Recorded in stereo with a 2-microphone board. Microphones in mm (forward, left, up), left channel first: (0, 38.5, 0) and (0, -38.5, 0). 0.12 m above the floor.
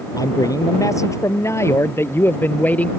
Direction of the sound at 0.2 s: 55° left (ahead or behind).